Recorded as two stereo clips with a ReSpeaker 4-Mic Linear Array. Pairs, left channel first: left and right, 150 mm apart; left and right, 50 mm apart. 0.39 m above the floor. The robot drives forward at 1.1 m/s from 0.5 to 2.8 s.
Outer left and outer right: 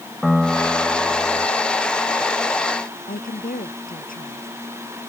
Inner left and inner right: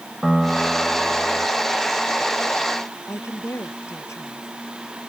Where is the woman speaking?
70° left (ahead or behind).